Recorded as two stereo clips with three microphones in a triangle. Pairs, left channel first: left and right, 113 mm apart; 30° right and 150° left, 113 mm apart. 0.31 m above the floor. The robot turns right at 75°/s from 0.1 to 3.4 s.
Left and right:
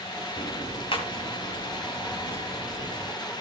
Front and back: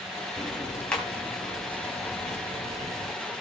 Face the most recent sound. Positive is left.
turn(degrees=-125)